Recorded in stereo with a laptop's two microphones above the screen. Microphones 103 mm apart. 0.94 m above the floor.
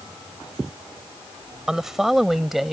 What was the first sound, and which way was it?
A woman speaking, 5° right (ahead or behind).